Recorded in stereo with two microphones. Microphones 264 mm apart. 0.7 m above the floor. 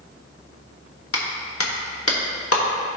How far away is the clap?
About 1.1 m.